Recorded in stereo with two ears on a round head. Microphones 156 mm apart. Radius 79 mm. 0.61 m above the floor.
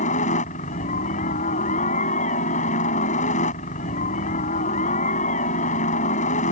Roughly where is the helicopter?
Left.